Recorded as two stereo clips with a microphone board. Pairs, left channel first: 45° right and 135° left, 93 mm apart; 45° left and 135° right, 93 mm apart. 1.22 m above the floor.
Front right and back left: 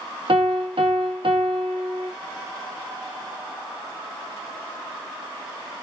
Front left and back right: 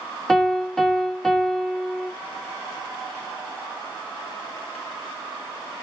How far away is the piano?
About 0.9 m.